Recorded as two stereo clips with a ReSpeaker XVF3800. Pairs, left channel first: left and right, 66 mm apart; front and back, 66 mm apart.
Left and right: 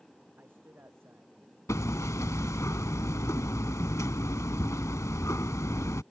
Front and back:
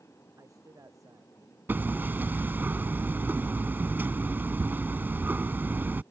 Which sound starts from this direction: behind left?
Hammering, at 1.7 s.